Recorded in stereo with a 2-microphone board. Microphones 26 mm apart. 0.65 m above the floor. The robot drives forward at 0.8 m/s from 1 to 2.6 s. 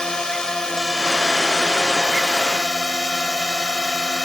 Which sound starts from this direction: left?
A drone, at 0.0 s.